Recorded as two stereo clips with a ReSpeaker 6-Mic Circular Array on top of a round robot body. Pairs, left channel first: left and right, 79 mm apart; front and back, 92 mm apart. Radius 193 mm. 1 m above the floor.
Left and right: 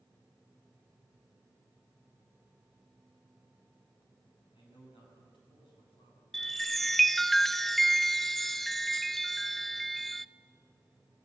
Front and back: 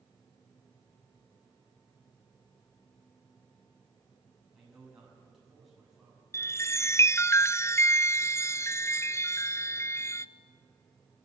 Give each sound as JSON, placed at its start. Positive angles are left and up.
{"t": 4.5, "sound": "a man speaking", "azimuth_deg": 95, "distance_m": 7.5}
{"t": 6.3, "sound": "a chime", "azimuth_deg": 5, "distance_m": 0.6}